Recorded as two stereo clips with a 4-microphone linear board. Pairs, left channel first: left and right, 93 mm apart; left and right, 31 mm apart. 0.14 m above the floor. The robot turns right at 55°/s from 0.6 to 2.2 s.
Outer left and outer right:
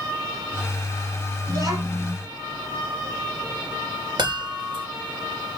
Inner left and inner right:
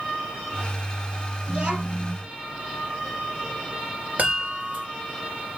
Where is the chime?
60° right (ahead or behind), 2.5 m.